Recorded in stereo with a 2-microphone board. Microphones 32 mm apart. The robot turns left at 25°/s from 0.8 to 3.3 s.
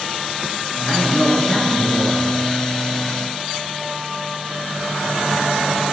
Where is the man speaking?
125° left, 2 m; by 2.3 s 90° left, 2 m.